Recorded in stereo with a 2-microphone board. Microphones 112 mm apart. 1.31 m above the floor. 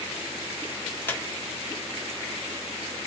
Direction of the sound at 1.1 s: 15° left (ahead or behind).